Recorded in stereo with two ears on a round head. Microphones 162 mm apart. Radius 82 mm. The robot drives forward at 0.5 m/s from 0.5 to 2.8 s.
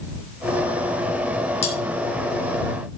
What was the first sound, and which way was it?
Cutlery clinking, 40° left (ahead or behind).